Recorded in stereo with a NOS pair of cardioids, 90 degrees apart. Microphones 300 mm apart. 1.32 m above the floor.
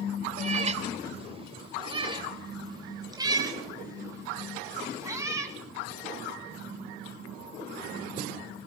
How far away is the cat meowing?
About 2.5 m.